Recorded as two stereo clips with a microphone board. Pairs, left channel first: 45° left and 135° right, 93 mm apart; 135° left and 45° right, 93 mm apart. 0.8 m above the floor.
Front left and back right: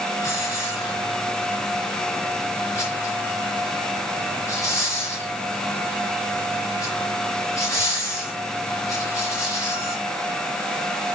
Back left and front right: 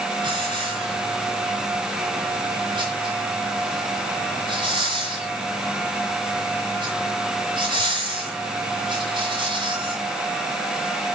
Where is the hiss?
10° right, 4 m.